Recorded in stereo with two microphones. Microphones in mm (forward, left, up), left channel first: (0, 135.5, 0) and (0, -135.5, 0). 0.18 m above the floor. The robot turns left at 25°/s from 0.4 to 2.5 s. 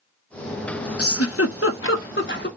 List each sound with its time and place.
1.0 s a giggle: 60° left (ahead or behind), 0.8 m; by 2.5 s 40° left (ahead or behind), 0.8 m